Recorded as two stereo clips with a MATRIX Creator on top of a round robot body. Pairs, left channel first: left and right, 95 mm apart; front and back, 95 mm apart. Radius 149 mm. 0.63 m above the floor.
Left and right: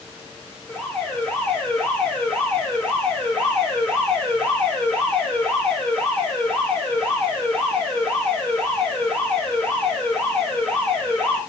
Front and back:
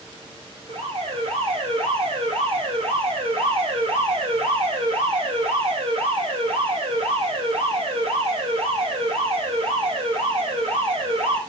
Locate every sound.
0.7 s an alarm: 160° left, 5.5 m